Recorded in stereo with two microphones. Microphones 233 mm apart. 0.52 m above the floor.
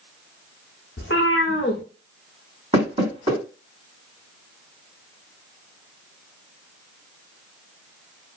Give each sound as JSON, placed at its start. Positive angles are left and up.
{"t": 1.0, "sound": "a cat meowing", "side_deg": 55, "distance_m": 0.7}
{"t": 2.7, "sound": "knocking", "side_deg": -30, "distance_m": 1.7}